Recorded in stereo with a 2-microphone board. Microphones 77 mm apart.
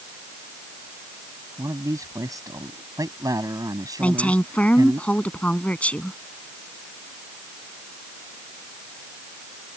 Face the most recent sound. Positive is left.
turn(degrees=20)  # may be behind; listen again after turning